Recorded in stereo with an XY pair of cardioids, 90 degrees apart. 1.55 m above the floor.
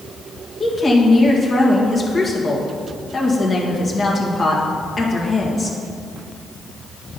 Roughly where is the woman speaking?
Ahead left.